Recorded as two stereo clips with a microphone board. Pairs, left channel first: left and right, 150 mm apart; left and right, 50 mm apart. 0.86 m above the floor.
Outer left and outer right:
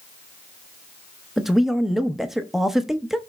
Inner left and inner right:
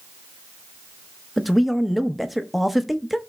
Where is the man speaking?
5° right (ahead or behind), 0.8 m.